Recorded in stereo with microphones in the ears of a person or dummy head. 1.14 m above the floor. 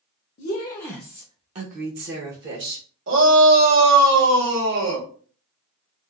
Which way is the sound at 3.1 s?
65° right (ahead or behind).